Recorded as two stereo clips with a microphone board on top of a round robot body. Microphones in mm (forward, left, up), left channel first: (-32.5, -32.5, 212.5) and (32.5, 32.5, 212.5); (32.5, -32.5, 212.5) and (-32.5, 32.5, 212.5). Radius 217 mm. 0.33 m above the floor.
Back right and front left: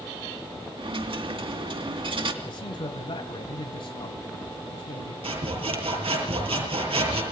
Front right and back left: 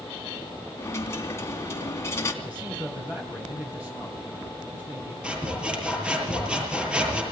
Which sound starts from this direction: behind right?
A man speaking, at 2.4 s.